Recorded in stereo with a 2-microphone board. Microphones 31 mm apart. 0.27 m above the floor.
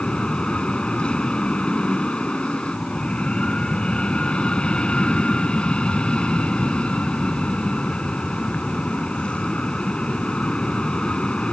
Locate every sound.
0.0 s an aircraft: 30° left (ahead or behind)